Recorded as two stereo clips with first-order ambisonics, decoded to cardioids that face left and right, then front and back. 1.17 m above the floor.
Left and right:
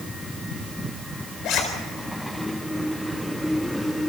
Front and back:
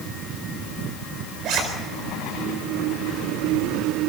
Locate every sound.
1.4 s a zipper: 135° left, 4 m